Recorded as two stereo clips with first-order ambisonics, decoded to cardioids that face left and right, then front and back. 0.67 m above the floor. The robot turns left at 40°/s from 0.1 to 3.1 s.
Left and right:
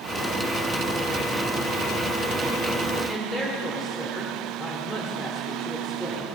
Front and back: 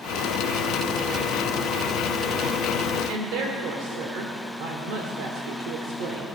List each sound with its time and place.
3.1 s a woman speaking: 170° left, 1.5 m